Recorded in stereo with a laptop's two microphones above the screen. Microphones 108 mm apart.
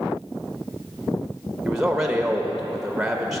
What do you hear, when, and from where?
1.6 s a man speaking: 5° right (ahead or behind), 0.8 m